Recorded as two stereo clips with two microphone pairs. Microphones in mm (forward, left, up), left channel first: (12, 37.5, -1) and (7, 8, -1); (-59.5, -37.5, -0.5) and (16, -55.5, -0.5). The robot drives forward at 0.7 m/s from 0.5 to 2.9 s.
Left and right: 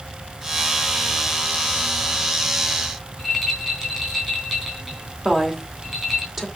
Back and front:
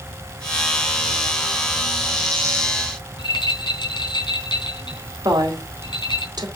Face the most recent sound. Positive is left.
turn(degrees=-20)